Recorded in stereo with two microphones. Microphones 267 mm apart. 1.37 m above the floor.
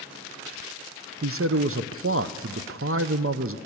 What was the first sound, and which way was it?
A man speaking, 55° right (ahead or behind).